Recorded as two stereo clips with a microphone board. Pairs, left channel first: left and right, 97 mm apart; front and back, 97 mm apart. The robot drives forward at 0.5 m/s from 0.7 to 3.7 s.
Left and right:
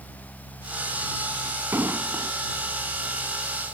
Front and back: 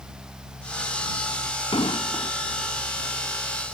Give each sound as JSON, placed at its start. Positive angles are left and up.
{"t": 1.7, "sound": "an explosion", "azimuth_deg": -25}